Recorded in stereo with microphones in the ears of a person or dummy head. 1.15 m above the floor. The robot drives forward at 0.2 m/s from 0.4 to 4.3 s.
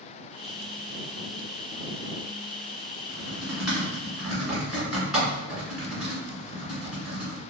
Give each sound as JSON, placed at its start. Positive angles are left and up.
{"t": 3.1, "sound": "typing on a keyboard", "side_deg": 5, "distance_m": 1.9}